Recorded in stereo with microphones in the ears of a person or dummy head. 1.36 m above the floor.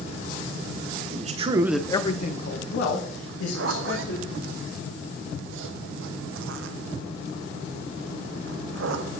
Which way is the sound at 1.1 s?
45° right (ahead or behind).